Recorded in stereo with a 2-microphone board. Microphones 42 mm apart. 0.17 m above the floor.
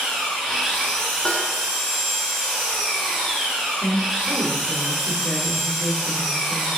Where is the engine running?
10° left (ahead or behind), 1.2 m.